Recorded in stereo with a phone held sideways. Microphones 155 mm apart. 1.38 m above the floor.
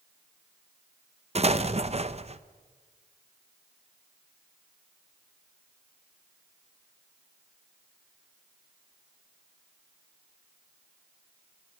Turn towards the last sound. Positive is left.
turn(degrees=-45)  # may be behind; listen again after turning